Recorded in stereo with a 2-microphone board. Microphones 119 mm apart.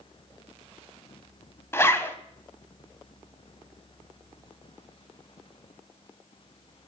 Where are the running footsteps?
No running footsteps in this recording.